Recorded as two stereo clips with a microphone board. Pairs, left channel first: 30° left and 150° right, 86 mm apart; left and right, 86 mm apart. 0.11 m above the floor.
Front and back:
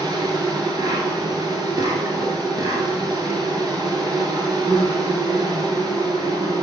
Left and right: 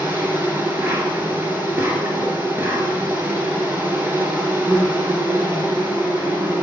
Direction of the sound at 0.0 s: 150° right.